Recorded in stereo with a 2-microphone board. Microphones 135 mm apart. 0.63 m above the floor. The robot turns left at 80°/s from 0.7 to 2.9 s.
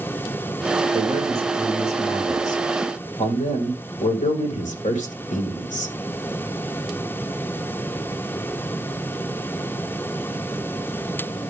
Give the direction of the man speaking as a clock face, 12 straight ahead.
4 o'clock.